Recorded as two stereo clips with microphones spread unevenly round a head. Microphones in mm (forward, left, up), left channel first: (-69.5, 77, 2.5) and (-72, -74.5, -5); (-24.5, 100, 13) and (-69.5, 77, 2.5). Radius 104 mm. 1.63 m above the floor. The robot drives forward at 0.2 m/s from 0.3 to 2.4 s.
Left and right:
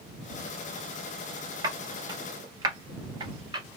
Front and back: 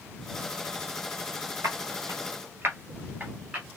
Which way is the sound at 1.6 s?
145° right.